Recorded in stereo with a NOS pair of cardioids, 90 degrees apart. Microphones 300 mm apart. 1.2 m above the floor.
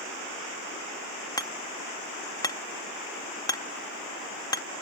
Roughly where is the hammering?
Ahead.